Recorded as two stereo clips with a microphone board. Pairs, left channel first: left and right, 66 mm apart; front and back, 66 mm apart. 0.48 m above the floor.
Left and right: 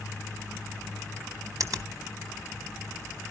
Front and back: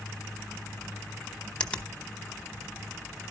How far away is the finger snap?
About 1.1 m.